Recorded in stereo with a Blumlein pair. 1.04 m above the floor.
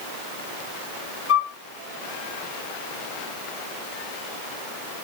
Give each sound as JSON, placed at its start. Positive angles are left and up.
{"t": 1.3, "sound": "a flute", "azimuth_deg": 35, "distance_m": 1.2}